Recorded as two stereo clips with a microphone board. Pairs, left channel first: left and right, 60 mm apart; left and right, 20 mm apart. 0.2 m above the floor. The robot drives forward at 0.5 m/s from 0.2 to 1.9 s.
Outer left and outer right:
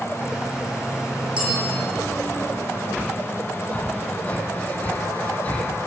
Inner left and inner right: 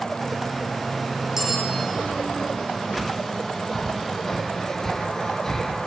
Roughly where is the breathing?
Left.